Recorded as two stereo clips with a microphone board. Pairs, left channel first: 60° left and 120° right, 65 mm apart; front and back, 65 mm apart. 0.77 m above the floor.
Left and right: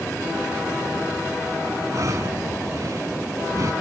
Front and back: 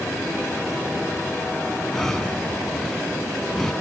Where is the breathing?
85° right.